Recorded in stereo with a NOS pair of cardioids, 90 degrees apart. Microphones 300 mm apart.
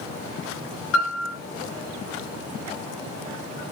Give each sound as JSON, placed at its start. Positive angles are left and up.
{"t": 0.9, "sound": "a piano", "azimuth_deg": 50, "distance_m": 3.0}